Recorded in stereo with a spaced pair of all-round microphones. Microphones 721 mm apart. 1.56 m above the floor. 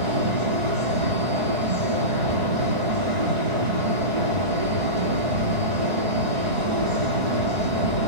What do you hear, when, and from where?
0.0 s a fan: 75° right (ahead or behind), 3 m